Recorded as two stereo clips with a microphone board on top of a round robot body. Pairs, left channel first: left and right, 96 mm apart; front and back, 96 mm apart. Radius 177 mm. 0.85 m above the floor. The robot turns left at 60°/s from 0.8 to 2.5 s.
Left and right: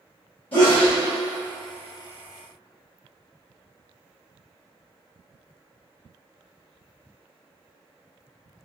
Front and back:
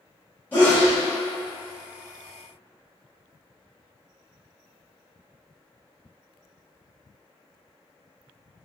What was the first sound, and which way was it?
A sneeze, 70° left.